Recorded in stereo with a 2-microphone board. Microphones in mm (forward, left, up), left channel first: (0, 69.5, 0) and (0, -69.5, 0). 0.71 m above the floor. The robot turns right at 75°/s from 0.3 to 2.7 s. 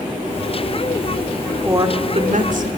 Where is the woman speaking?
160° right, 2 m; by 2.7 s 85° right, 2 m.